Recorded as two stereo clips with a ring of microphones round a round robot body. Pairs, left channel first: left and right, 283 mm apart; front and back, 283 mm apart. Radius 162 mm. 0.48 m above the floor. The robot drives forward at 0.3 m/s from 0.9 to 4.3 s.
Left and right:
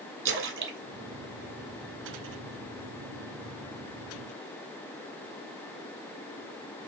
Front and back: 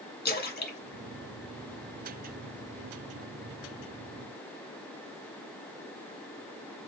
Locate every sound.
0.2 s a splash: 55° right, 2.5 m; by 2.3 s 65° right, 2.5 m